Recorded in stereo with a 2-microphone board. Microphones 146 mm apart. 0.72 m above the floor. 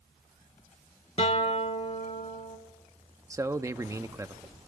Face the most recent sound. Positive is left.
turn(degrees=-20)  # may be behind; listen again after turning